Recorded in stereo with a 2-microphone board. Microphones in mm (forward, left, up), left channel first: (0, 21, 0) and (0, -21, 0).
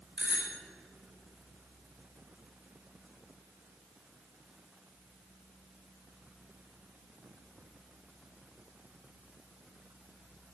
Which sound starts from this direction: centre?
A bicycle bell, at 0.2 s.